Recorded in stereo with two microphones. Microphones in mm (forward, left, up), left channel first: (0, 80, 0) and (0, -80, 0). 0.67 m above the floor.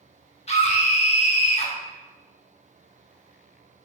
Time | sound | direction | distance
0.5 | a scream | 40° left (ahead or behind) | 0.8 m